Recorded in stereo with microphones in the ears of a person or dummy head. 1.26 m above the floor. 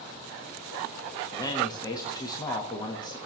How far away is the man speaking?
About 1.4 m.